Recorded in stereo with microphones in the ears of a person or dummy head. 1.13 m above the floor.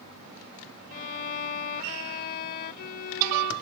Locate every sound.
0.9 s a violin: 50° left (ahead or behind)